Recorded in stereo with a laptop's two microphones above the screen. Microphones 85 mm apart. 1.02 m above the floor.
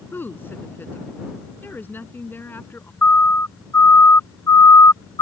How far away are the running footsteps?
I don't hear running footsteps.